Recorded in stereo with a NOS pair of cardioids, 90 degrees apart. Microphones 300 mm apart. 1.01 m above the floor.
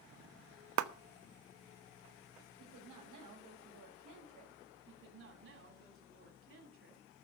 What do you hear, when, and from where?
0.8 s a clap: 65° right, 1.1 m
2.6 s a woman speaking: 70° right, 6 m
4.9 s a woman speaking: 40° right, 7.5 m